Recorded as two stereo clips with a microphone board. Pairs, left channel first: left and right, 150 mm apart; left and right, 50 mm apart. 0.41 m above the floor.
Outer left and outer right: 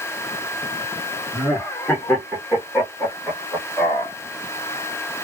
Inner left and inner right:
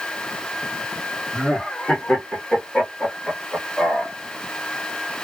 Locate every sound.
1.3 s laughter: 10° left (ahead or behind), 1.0 m